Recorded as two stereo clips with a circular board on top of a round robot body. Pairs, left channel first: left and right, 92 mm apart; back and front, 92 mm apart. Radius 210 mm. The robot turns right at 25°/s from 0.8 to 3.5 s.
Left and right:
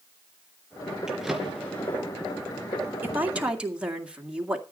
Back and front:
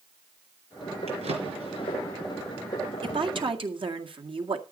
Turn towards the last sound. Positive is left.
turn(degrees=-10)